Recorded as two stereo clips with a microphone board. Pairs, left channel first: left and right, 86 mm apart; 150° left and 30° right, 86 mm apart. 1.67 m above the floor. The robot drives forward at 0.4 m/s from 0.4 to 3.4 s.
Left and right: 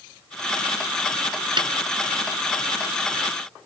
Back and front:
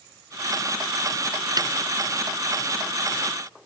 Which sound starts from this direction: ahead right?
A snare drum, at 1.6 s.